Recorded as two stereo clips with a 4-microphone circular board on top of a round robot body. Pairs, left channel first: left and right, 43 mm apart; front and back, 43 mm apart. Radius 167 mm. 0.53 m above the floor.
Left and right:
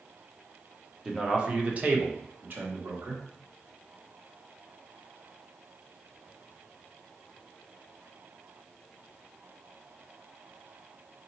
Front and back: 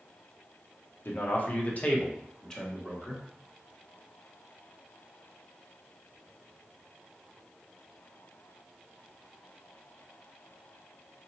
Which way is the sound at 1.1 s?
10° right.